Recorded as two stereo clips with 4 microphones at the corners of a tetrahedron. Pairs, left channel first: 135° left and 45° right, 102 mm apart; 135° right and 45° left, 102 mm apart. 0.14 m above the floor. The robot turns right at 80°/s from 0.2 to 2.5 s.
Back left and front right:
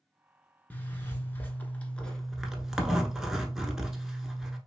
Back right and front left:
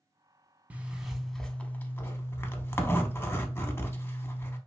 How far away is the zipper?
About 0.6 m.